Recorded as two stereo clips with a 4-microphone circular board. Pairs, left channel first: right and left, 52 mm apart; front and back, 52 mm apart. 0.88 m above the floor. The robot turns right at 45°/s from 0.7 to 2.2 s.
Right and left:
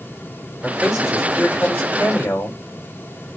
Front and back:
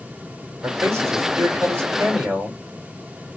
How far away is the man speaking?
About 3 m.